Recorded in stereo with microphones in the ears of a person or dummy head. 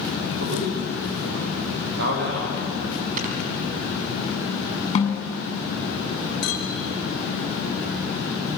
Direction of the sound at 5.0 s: 35° left (ahead or behind).